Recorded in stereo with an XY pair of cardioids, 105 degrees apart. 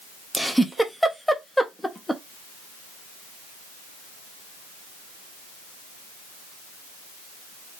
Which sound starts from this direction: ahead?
A giggle, at 0.3 s.